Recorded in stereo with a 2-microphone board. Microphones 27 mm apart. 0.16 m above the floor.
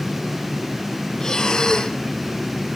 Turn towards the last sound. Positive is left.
turn(degrees=30)  # may be behind; listen again after turning